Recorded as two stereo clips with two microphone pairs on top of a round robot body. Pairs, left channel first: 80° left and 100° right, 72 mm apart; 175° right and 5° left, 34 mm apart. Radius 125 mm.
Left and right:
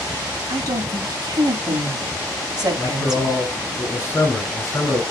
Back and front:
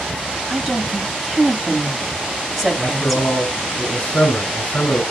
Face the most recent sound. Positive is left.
turn(degrees=140)